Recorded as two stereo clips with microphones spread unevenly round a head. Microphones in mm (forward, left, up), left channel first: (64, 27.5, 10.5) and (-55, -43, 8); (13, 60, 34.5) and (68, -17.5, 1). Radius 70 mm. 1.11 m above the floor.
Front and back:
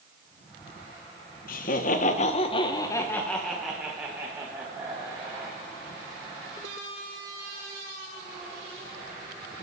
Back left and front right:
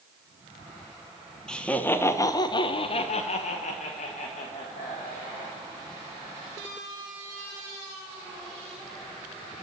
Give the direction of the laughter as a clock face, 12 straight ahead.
11 o'clock.